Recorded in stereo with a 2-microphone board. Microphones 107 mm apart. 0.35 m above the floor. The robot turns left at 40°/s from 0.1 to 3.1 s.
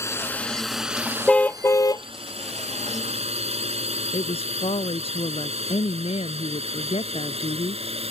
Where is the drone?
25° left (ahead or behind); by 8.1 s 65° right (ahead or behind).